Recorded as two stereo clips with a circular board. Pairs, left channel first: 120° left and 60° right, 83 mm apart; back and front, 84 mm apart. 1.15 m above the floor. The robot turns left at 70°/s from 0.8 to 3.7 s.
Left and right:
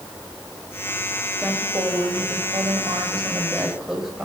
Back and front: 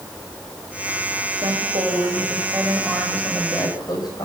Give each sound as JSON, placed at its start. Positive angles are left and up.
{"t": 1.4, "sound": "a woman speaking", "azimuth_deg": 20, "distance_m": 6.5}